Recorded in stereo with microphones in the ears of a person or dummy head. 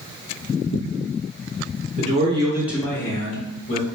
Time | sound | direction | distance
2.0 | a man speaking | 40° right (ahead or behind) | 0.7 m